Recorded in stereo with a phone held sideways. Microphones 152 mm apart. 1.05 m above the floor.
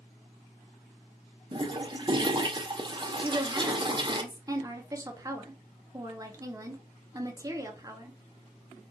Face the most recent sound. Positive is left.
turn(degrees=-25)  # may be behind; listen again after turning